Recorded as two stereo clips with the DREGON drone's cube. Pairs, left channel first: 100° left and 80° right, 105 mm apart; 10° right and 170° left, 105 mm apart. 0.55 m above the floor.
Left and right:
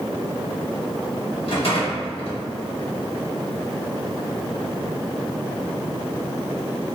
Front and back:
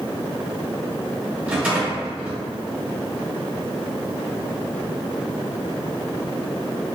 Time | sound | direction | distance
1.5 | a rattle | 95° left | 1.0 m